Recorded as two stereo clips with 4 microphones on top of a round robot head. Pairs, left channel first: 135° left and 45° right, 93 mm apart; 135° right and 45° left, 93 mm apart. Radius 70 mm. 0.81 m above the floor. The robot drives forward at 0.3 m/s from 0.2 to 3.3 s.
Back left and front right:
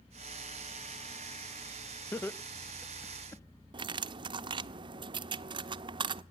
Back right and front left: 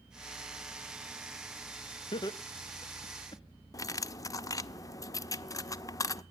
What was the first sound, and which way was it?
Laughter, 160° right.